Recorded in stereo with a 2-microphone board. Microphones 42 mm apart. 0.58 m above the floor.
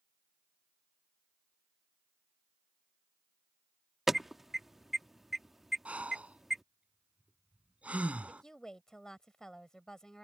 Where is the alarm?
5° right (ahead or behind).